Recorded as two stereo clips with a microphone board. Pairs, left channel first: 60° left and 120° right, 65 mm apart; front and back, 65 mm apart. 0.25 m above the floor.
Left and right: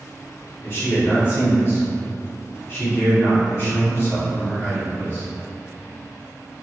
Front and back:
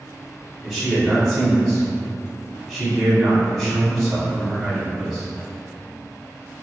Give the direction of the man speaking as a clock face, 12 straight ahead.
9 o'clock.